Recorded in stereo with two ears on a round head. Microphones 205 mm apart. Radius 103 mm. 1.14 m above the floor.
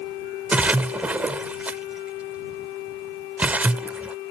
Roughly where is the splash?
Centre.